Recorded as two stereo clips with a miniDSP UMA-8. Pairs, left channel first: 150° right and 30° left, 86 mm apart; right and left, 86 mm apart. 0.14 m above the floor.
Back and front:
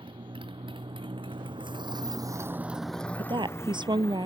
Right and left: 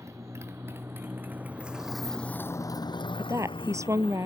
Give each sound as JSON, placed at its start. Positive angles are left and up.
{"t": 0.0, "sound": "a motorcycle", "azimuth_deg": 35}
{"t": 3.2, "sound": "a woman speaking", "azimuth_deg": 40}